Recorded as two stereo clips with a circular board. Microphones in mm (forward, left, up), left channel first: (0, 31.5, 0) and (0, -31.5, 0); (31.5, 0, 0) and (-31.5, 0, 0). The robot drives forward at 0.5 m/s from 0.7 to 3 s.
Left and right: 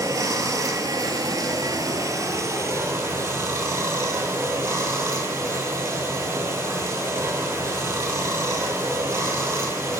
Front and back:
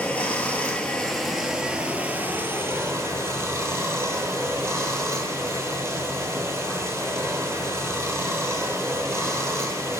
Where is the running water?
70° right, 0.9 m; by 10.0 s 135° right, 1.2 m.